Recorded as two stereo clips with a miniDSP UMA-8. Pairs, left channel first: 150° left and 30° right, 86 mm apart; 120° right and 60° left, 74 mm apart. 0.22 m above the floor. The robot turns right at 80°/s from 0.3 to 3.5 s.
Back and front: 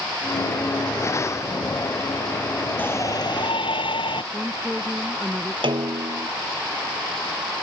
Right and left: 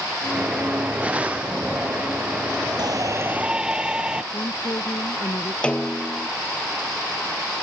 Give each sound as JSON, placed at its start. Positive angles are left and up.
{"t": 2.8, "sound": "a shout", "azimuth_deg": 80}
{"t": 4.3, "sound": "a woman speaking", "azimuth_deg": -120}
{"t": 5.6, "sound": "a snare drum", "azimuth_deg": -45}